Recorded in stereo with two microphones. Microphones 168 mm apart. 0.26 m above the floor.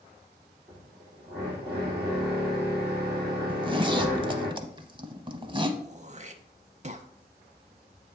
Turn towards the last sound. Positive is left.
turn(degrees=-40)  # may be behind; listen again after turning